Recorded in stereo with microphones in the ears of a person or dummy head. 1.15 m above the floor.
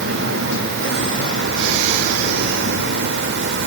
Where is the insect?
70° right (ahead or behind), 1.6 m.